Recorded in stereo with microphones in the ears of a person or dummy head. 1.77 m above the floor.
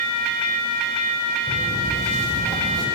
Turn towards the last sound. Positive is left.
turn(degrees=-20)  # may be behind; listen again after turning